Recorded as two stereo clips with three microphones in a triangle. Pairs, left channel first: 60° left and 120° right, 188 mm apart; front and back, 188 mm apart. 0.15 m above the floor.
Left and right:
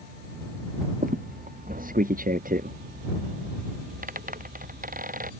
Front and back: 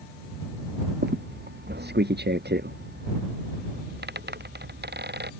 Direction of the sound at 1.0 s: 160° right.